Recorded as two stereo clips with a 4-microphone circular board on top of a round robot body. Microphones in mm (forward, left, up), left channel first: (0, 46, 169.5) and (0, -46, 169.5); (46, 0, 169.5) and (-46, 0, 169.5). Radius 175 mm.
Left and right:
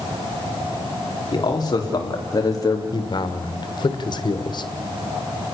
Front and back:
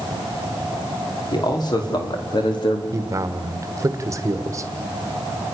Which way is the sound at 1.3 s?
45° left.